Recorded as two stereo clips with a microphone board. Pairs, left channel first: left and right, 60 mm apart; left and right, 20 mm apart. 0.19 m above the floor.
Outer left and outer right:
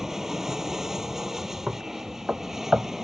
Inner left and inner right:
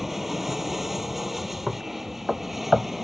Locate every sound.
0.0 s an aircraft: 5° right (ahead or behind)
1.7 s knocking: 20° right (ahead or behind)